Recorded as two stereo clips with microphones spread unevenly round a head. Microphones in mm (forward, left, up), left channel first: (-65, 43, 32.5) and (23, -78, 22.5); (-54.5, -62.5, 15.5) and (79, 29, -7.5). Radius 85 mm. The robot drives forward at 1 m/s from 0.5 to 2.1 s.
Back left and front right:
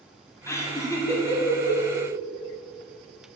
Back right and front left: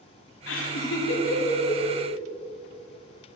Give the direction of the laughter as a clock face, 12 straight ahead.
5 o'clock.